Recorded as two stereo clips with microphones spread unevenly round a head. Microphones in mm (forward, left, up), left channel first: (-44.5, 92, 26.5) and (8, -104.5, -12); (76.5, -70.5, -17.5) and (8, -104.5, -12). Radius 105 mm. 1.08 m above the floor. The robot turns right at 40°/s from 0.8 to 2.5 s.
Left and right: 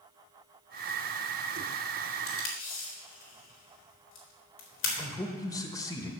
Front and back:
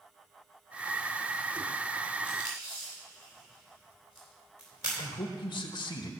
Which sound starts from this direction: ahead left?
A man speaking, at 5.0 s.